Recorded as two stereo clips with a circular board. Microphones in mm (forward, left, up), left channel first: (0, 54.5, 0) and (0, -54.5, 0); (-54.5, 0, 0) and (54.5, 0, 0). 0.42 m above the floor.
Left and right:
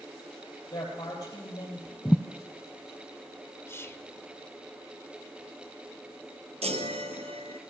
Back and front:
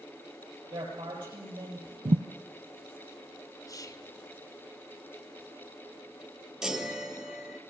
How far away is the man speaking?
About 8.5 m.